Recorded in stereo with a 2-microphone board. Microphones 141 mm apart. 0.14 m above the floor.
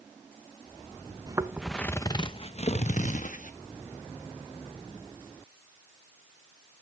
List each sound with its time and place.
1.3 s footsteps: 30° right (ahead or behind), 0.7 m; by 3.5 s 65° left (ahead or behind), 1.7 m